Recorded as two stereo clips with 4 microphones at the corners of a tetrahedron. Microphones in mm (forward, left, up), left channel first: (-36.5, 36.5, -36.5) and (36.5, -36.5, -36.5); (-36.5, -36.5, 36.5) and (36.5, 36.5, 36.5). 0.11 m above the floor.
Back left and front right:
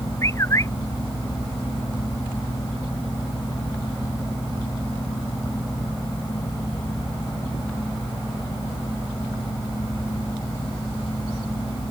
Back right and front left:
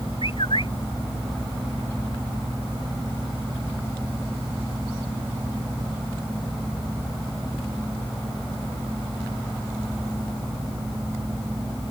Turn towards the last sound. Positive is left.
turn(degrees=-165)